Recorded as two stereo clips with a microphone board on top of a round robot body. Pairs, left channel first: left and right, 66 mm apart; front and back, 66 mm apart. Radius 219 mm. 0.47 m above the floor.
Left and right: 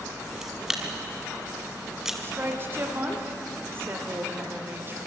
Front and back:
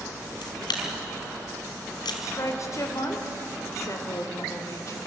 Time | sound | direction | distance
0.4 | a camera shutter | 5° right | 1.5 m
2.2 | a woman speaking | 35° right | 3 m